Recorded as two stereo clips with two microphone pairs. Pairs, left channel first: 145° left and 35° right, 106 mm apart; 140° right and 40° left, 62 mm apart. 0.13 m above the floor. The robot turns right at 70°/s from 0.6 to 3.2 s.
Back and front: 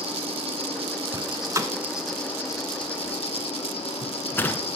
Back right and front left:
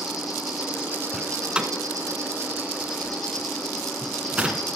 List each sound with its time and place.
0.0 s an insect: 45° right, 5 m; by 4.8 s 135° left, 5 m
1.1 s a door slam: 50° right, 1.2 m; by 4.7 s 95° left, 1.2 m